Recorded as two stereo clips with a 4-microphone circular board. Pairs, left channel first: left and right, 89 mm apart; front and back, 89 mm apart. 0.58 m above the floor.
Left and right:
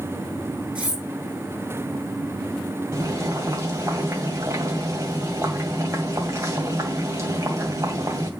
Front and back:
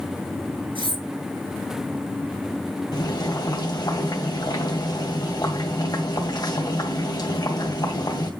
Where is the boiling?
40° right, 2 m.